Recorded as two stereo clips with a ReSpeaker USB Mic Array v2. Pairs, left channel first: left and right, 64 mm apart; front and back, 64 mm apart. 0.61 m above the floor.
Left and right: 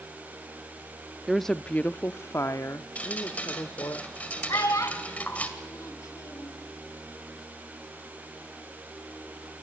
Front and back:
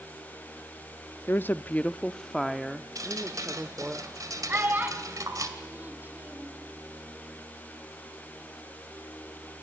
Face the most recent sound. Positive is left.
turn(degrees=120)